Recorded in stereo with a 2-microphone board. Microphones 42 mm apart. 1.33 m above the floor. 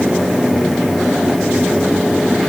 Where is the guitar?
I don't hear a guitar.